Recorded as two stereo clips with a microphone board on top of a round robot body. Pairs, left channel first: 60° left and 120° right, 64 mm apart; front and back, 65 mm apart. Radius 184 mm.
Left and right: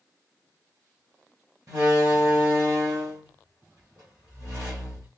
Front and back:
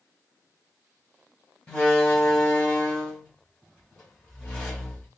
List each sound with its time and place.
1.7 s a door slam: 75° right, 3.5 m